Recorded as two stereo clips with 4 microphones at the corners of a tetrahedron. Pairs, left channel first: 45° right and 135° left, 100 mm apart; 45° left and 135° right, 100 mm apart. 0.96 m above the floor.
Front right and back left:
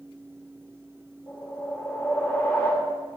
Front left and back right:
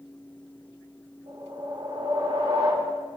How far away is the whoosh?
About 2 m.